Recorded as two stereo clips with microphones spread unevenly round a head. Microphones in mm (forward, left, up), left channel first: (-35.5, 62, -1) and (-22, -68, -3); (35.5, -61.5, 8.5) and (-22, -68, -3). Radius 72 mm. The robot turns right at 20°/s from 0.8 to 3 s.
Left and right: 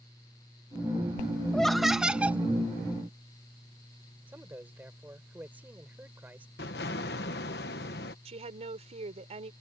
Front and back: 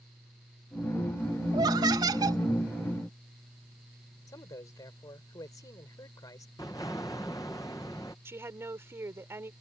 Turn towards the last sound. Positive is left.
turn(degrees=-125)